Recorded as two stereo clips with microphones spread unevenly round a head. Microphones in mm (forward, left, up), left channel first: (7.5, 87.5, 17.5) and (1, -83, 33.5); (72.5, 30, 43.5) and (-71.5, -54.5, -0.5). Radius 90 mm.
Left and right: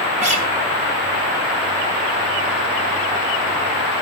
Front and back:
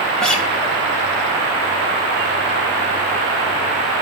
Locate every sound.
0.2 s a guitar: 45° right, 1.4 m